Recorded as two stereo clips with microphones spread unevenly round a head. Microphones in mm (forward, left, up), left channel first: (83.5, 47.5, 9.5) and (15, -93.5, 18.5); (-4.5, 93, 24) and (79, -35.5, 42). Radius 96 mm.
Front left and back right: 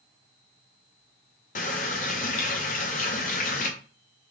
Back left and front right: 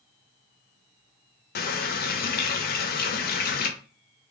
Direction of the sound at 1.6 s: 110° left.